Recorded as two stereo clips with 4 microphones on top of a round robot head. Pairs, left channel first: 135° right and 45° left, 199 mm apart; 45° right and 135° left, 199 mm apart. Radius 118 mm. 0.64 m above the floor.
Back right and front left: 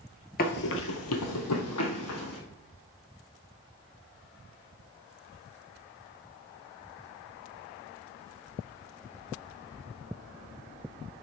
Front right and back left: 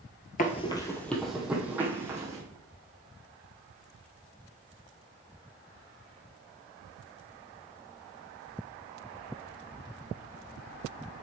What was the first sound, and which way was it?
Running footsteps, 95° right.